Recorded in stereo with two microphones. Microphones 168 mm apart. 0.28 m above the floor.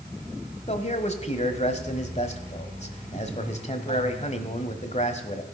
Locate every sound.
0.7 s a man speaking: 40° left (ahead or behind), 1.2 m